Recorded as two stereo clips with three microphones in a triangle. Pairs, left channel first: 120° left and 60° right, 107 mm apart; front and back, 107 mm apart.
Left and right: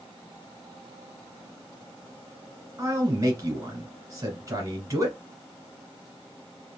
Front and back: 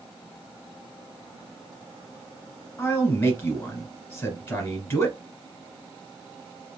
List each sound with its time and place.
2.8 s a man speaking: 45° right, 1.4 m